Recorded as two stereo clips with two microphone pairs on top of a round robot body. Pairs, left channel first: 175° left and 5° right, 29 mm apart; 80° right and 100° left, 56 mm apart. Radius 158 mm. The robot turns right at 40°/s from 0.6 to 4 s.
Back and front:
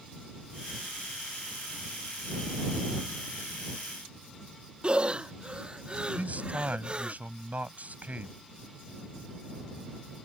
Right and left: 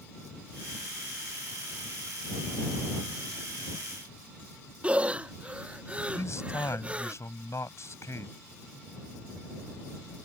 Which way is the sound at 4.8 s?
30° left.